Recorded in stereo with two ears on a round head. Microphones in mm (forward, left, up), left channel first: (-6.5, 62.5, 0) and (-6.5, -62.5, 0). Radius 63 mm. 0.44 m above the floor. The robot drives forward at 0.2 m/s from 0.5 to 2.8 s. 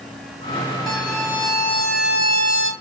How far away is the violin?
About 2 m.